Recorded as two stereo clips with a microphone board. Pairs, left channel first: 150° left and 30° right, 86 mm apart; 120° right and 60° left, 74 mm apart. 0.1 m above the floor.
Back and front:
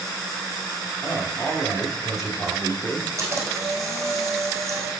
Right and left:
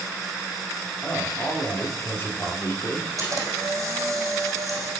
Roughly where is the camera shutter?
Ahead left.